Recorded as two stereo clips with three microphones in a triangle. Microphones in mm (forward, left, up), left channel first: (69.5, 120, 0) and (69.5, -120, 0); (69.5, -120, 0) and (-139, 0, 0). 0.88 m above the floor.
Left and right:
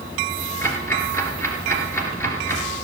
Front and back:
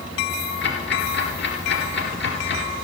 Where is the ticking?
10° left, 2.5 m.